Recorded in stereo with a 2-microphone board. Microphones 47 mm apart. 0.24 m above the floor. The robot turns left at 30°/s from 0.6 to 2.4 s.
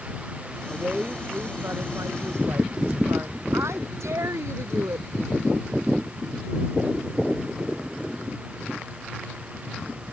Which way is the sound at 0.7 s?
30° right.